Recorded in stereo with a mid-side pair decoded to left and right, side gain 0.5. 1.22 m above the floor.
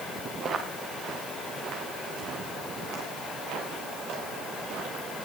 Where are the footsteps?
50° right, 6.5 m; by 5.0 s 75° right, 11.5 m.